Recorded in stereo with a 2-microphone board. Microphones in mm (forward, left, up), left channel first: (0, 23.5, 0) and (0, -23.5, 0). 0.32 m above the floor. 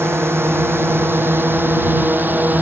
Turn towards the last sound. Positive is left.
turn(degrees=-40)  # may be behind; listen again after turning